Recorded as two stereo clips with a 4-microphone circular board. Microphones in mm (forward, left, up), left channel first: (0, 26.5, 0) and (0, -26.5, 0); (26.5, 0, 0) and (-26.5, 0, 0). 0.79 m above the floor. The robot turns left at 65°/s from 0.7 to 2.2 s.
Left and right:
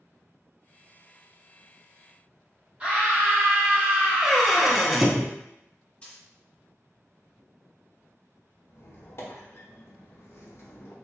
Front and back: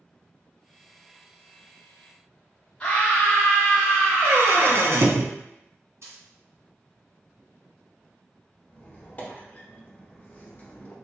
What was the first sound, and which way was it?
A scream, 50° right.